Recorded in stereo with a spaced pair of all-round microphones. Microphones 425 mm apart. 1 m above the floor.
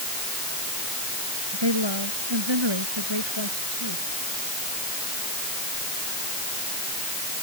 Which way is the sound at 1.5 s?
75° right (ahead or behind).